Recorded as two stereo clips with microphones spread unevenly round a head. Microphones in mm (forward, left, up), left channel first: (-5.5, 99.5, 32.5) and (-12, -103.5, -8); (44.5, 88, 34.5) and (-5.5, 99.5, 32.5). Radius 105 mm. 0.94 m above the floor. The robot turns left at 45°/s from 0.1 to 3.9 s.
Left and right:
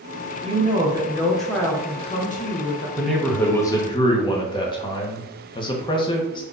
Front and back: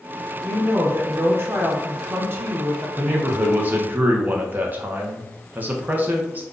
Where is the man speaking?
160° right, 0.6 m; by 6.4 s 160° left, 0.6 m.